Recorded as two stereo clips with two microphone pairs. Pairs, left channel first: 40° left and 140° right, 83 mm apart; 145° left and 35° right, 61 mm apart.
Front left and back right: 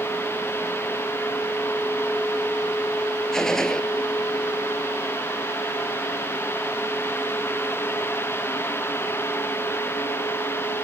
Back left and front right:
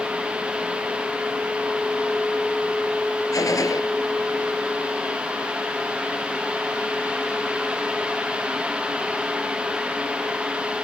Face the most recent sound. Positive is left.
turn(degrees=125)